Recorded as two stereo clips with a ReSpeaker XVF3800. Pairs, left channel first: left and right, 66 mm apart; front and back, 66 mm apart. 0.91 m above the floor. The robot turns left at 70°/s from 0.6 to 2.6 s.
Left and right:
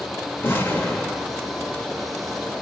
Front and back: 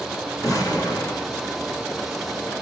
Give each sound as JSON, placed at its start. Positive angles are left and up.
{"t": 0.4, "sound": "an explosion", "azimuth_deg": 30, "distance_m": 1.9}